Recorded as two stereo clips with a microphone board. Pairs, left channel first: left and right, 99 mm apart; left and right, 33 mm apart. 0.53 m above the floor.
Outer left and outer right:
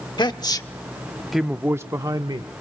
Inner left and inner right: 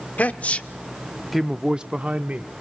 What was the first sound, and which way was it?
A man speaking, 50° left (ahead or behind).